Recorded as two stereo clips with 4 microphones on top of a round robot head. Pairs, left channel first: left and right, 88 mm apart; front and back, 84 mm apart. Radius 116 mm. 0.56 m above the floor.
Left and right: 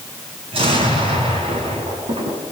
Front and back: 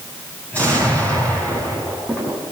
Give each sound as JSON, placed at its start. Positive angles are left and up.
{"t": 0.5, "sound": "an explosion", "azimuth_deg": -75, "distance_m": 7.5}